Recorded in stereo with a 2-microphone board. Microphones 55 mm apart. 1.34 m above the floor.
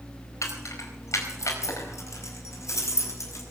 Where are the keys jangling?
80° left, 4 m; by 3.4 s 70° left (ahead or behind), 6 m.